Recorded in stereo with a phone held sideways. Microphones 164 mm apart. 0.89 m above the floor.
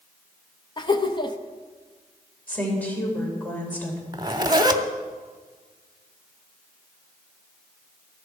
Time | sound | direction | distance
0.8 | laughter | 30° left (ahead or behind) | 0.9 m
2.5 | a woman speaking | 10° left (ahead or behind) | 3.5 m
4.1 | a zipper | 25° right (ahead or behind) | 0.8 m